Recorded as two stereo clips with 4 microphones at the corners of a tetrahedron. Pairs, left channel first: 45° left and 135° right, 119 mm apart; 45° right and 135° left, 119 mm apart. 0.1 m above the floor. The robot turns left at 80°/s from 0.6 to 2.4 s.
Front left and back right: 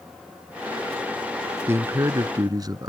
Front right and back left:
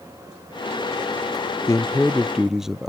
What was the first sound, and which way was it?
A man speaking, 85° right.